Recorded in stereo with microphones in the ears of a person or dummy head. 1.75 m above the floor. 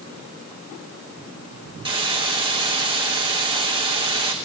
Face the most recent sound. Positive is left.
turn(degrees=-25)  # may be behind; listen again after turning